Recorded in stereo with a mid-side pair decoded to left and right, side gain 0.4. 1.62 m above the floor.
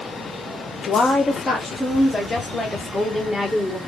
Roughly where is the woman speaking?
Ahead left.